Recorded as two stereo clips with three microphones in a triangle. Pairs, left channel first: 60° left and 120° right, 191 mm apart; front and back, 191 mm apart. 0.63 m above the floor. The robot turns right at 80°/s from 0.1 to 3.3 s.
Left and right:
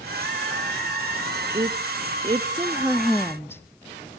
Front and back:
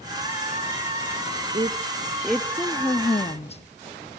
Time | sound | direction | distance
1.5 | a woman speaking | 150° right | 0.6 m